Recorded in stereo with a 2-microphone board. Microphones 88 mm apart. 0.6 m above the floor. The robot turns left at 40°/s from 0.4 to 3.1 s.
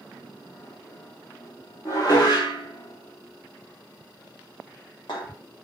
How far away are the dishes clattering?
About 1.0 m.